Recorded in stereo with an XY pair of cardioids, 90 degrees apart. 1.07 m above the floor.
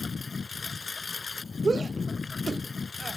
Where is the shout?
35° right.